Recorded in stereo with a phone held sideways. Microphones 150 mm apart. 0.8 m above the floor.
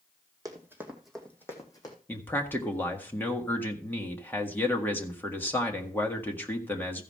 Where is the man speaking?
15° left (ahead or behind), 1.7 m.